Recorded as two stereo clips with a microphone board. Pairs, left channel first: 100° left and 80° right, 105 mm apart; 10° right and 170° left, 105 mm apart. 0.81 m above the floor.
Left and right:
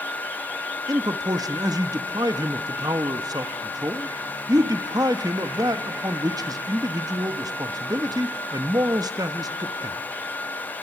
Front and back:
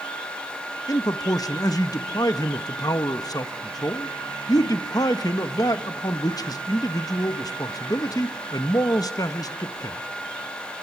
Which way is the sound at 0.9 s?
45° right.